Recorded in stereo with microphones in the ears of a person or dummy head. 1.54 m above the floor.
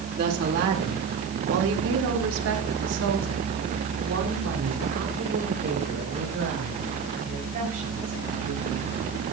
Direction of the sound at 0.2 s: 55° right (ahead or behind).